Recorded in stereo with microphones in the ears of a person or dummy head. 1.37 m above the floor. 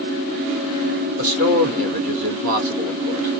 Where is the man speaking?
50° right (ahead or behind), 1.2 m.